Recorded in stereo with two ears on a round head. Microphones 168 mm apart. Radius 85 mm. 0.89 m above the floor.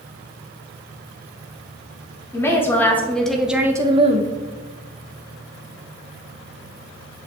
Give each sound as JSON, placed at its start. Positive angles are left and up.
{"t": 2.3, "sound": "a woman speaking", "side_deg": 15, "distance_m": 1.8}